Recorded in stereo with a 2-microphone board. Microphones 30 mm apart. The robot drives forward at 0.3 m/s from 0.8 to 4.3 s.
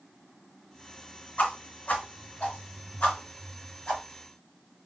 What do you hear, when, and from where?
1.4 s a whoosh: 50° left (ahead or behind), 1.6 m; by 4.0 s 40° left (ahead or behind), 1.8 m